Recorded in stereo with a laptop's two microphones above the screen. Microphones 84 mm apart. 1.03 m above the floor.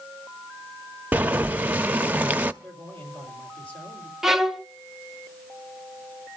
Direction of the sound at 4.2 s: 5° right (ahead or behind).